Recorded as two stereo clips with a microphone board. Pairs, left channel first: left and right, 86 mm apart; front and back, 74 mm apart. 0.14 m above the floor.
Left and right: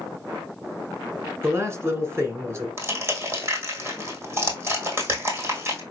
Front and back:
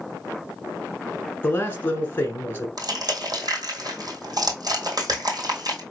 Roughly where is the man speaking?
Ahead right.